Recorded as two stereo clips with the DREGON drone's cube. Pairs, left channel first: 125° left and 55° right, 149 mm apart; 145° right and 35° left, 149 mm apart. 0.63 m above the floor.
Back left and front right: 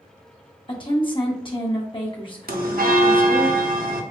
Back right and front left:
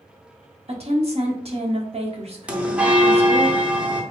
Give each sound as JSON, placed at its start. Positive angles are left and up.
{"t": 0.7, "sound": "a woman speaking", "azimuth_deg": 75, "distance_m": 1.0}
{"t": 2.5, "sound": "a bell", "azimuth_deg": -45, "distance_m": 0.6}